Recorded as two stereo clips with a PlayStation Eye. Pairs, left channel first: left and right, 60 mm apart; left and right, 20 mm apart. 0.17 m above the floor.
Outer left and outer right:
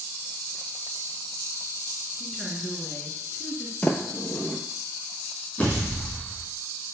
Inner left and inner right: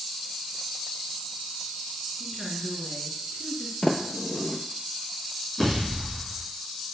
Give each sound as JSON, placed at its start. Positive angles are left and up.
{"t": 2.2, "sound": "a woman speaking", "side_deg": -5, "distance_m": 2.0}
{"t": 3.8, "sound": "a sliding door", "side_deg": 20, "distance_m": 0.7}
{"t": 5.6, "sound": "a pop", "side_deg": 20, "distance_m": 3.5}